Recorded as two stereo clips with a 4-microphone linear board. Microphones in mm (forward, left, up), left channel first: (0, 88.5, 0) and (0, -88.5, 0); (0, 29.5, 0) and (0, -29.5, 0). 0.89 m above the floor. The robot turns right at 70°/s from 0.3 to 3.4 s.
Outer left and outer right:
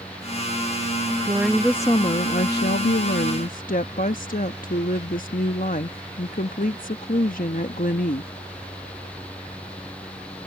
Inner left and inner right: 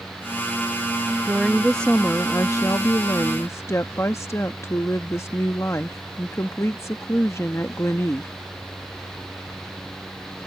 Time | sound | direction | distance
1.2 | a woman speaking | 25° right | ?